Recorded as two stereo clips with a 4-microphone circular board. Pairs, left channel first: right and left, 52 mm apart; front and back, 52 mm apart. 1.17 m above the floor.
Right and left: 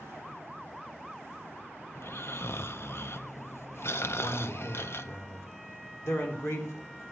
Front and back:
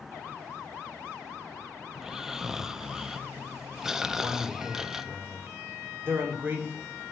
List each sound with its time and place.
1.9 s snoring: 100° right, 0.5 m
4.2 s a man speaking: 125° right, 3.5 m